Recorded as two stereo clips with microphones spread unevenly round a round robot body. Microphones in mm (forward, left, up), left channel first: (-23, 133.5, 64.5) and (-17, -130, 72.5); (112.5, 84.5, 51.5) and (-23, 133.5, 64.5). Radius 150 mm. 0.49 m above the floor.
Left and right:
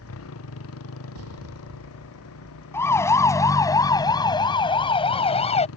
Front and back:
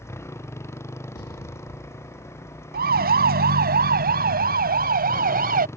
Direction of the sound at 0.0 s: 50° left.